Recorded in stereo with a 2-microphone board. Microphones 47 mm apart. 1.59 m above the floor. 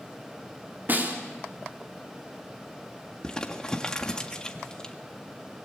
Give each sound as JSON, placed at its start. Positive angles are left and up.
{"t": 0.9, "sound": "a snare drum", "side_deg": -45, "distance_m": 3.5}
{"t": 3.2, "sound": "crumpling", "side_deg": 15, "distance_m": 1.8}